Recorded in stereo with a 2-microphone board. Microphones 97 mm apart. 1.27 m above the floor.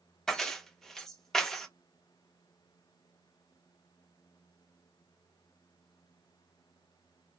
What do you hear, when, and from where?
0.3 s keys jangling: 5° left (ahead or behind), 0.5 m